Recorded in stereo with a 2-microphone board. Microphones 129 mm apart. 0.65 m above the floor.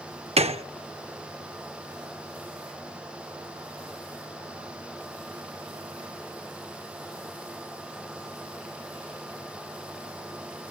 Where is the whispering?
No whispering in this recording.